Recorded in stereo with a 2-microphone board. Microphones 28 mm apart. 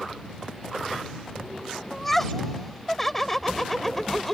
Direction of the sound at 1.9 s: 15° left (ahead or behind).